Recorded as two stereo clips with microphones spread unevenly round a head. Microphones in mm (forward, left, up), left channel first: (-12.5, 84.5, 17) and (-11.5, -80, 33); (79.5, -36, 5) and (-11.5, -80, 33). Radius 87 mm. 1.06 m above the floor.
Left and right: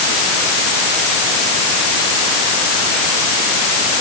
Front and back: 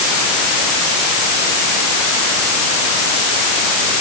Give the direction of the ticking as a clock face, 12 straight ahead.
I don't hear ticking.